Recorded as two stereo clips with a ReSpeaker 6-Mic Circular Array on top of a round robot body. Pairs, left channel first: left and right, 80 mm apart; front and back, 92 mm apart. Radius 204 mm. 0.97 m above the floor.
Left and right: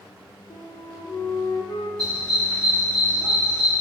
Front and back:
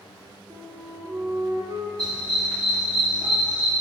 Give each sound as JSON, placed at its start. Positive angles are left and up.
{"t": 0.5, "sound": "a flute", "azimuth_deg": 125, "distance_m": 0.7}
{"t": 2.0, "sound": "a dog barking", "azimuth_deg": -130, "distance_m": 0.8}